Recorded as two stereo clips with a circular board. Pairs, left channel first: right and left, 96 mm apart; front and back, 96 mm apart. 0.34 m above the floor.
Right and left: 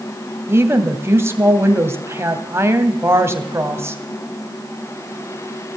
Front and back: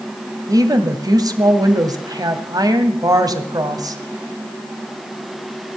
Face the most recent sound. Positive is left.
turn(degrees=145)